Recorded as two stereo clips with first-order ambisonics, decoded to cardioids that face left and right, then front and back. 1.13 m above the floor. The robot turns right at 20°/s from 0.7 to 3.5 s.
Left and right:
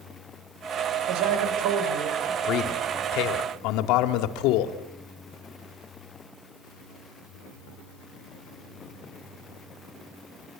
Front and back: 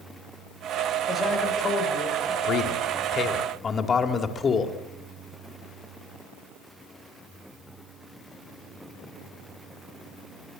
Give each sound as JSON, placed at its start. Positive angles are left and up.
{"t": 1.1, "sound": "a man speaking", "azimuth_deg": -85, "distance_m": 6.5}
{"t": 2.4, "sound": "a man speaking", "azimuth_deg": 50, "distance_m": 2.0}